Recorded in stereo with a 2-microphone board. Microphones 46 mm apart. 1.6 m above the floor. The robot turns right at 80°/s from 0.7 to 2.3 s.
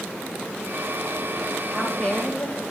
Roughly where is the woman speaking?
Ahead.